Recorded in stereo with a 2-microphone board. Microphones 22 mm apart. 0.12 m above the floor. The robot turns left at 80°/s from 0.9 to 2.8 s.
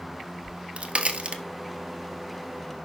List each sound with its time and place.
0.4 s a crack: 55° right (ahead or behind), 1.2 m; by 1.4 s 40° right (ahead or behind), 1.2 m